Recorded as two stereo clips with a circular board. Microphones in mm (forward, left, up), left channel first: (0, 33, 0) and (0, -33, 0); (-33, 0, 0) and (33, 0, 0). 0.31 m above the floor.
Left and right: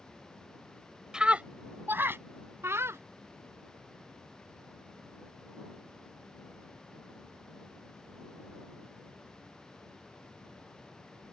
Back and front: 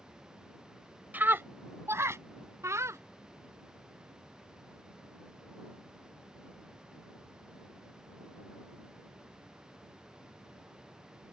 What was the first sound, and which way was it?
A scream, 25° right.